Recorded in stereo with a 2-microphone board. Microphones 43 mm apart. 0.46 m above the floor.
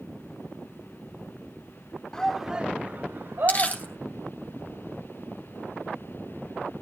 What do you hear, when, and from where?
2.1 s a shout: 15° left (ahead or behind), 1.0 m; by 4.0 s 70° right (ahead or behind), 2.5 m
3.5 s crumpling: 40° left (ahead or behind), 2.5 m